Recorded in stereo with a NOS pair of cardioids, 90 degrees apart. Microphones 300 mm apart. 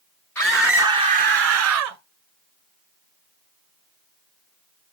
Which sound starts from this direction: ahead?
A scream, at 0.3 s.